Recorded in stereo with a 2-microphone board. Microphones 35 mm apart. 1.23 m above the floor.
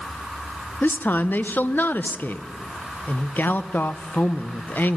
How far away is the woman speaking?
About 0.6 m.